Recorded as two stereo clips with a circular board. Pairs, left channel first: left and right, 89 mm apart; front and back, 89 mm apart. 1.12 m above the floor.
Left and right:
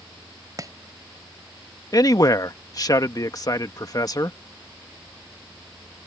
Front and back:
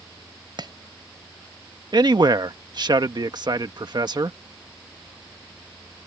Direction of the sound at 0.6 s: 140° right.